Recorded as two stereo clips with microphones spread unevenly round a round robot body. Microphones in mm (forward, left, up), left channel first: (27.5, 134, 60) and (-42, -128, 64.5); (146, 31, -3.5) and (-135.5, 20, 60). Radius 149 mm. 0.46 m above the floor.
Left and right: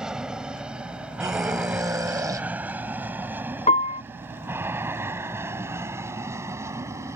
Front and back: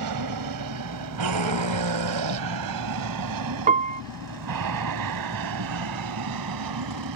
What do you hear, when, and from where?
0.0 s an aircraft: 170° left; by 7.2 s 175° left
1.2 s a scream: straight behind
3.7 s a piano: 115° left